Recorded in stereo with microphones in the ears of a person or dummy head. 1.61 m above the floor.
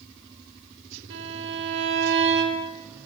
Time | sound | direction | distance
1.1 | a violin | 65° right (ahead or behind) | 2.5 m